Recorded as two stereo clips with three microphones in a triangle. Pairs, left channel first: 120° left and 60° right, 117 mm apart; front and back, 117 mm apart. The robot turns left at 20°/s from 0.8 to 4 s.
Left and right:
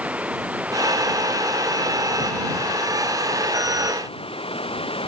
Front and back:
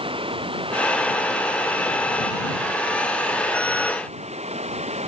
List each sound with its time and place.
0.0 s running water: 140° right; by 5.1 s 155° left